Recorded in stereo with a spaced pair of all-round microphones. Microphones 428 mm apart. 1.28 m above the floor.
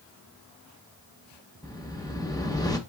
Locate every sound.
1.6 s a whoosh: 10° left (ahead or behind), 0.7 m